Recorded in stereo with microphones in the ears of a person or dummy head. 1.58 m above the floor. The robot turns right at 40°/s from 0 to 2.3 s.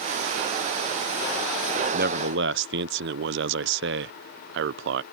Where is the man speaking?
50° right (ahead or behind); by 5.0 s 60° right (ahead or behind).